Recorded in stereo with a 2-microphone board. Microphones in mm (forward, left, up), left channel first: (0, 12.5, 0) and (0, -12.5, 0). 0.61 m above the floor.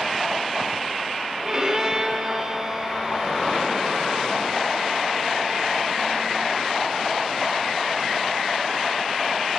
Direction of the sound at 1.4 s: 30° right (ahead or behind).